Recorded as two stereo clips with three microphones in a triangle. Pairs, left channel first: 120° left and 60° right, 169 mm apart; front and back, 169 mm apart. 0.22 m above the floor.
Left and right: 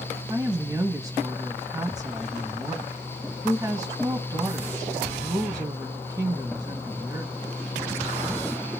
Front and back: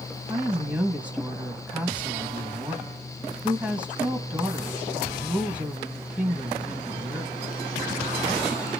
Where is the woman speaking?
105° right, 1.0 m.